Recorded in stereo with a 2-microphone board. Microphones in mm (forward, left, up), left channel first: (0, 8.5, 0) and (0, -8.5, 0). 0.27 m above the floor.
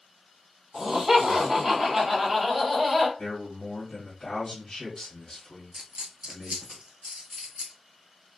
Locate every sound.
0.7 s laughter: 30° right (ahead or behind), 1.4 m; by 3.1 s centre (ahead or behind), 1.5 m
3.2 s a man speaking: 35° left (ahead or behind), 1.3 m
5.7 s a dropped coin: 75° right (ahead or behind), 0.7 m